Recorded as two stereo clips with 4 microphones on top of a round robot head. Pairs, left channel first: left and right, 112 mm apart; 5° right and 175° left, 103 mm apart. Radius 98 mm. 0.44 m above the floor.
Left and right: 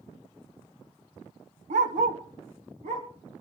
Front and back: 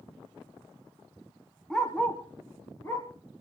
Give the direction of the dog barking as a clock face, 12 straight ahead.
3 o'clock.